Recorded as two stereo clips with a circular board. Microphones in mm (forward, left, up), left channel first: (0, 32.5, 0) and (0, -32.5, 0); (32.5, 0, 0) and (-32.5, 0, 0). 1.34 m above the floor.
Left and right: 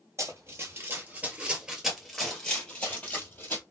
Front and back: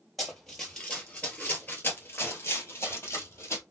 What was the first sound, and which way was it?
Running footsteps, 90° right.